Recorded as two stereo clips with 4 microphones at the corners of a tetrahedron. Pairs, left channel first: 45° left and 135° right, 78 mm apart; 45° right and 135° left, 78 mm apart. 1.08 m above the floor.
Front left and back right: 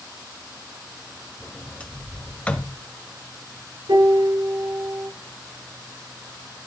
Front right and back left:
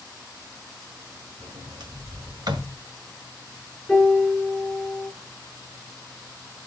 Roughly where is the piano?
Behind right.